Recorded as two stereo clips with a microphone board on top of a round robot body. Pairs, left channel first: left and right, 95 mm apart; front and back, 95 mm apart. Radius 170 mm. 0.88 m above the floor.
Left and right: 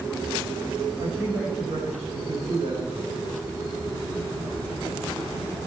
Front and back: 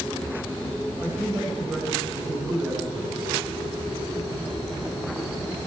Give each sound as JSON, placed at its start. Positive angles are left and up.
{"t": 1.0, "sound": "a man speaking", "azimuth_deg": -110, "distance_m": 5.0}